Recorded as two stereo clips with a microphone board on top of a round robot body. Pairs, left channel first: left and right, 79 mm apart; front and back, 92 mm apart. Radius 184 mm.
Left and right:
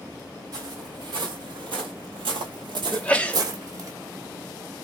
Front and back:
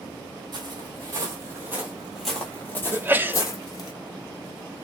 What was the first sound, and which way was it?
Footsteps, 135° right.